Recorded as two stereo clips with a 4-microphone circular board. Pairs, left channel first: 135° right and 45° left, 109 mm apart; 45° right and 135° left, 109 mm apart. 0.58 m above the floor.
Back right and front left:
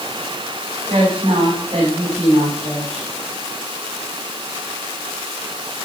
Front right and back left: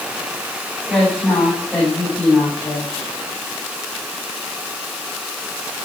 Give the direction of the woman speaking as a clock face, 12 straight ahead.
11 o'clock.